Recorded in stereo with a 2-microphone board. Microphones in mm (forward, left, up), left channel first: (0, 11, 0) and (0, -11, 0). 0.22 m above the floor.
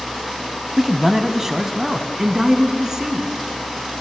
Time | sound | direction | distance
0.8 | a man speaking | 10° right (ahead or behind) | 1.3 m